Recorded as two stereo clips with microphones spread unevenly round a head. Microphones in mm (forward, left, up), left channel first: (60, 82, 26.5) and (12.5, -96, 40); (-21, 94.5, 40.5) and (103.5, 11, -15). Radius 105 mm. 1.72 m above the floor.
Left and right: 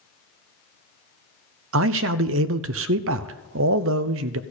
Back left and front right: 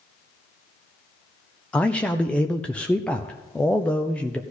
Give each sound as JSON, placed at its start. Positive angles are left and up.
{"t": 1.7, "sound": "a man speaking", "azimuth_deg": -125, "distance_m": 0.6}